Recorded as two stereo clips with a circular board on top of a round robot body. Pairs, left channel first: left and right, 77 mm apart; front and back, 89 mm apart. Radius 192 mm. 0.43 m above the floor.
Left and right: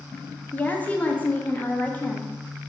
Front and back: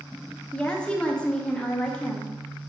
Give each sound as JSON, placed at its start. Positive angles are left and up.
{"t": 0.5, "sound": "a woman speaking", "azimuth_deg": 60, "distance_m": 0.7}